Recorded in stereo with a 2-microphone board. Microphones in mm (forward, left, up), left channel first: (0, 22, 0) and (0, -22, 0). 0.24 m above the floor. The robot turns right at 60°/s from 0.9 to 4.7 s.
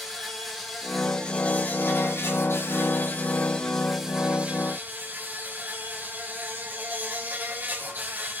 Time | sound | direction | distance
0.0 | an insect | straight ahead | 4 m